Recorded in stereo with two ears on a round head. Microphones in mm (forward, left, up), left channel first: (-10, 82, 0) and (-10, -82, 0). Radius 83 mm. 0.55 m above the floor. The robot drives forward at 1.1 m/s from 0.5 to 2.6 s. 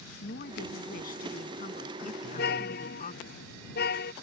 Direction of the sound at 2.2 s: 65° left (ahead or behind).